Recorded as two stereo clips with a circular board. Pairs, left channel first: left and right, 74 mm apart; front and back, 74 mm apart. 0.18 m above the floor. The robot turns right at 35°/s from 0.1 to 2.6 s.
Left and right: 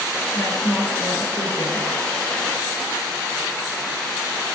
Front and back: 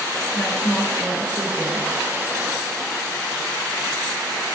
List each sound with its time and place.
0.3 s a woman speaking: 65° left, 2.5 m; by 1.9 s 120° left, 2.5 m